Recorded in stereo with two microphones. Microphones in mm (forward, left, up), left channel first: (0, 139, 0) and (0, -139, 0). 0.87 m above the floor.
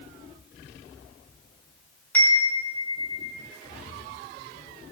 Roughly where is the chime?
Centre.